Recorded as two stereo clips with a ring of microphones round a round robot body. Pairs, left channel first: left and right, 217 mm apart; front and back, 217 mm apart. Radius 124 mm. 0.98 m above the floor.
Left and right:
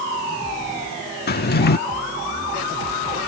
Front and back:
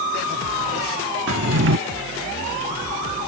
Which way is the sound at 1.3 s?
135° left.